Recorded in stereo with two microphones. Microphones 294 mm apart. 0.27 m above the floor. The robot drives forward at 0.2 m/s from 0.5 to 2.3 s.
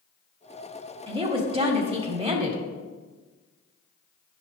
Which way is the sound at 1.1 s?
20° right (ahead or behind).